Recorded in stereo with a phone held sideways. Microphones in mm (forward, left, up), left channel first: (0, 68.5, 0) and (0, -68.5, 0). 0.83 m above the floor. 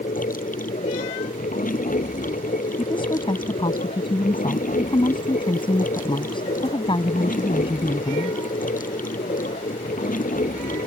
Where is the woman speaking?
35° left (ahead or behind).